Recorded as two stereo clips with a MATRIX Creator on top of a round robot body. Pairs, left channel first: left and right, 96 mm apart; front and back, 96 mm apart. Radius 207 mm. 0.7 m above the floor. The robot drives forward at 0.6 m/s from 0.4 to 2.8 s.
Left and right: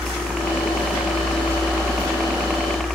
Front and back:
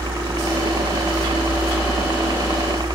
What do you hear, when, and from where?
0.0 s a helicopter: 175° right; by 3.0 s straight behind